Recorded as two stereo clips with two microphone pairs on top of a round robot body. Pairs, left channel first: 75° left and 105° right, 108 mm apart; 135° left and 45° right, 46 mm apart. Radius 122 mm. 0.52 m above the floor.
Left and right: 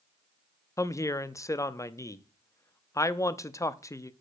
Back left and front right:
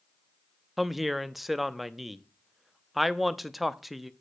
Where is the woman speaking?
60° left, 0.8 m.